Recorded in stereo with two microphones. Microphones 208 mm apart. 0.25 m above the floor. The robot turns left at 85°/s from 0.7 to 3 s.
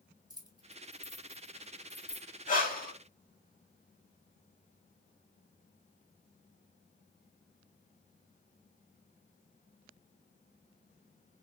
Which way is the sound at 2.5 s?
110° left.